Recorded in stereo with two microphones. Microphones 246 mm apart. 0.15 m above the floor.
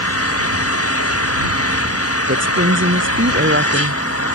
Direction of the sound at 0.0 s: 60° left (ahead or behind).